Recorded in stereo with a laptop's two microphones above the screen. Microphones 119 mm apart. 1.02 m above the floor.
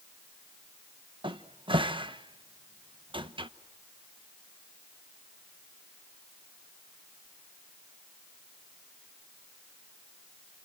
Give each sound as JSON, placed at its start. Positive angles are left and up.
{"t": 1.2, "sound": "a cupboard door", "side_deg": -45, "distance_m": 0.9}